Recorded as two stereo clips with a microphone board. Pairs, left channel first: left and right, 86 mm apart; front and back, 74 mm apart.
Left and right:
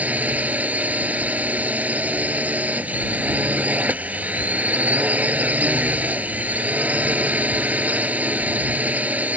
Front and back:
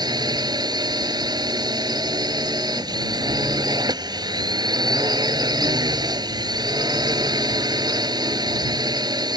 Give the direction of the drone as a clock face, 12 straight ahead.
5 o'clock.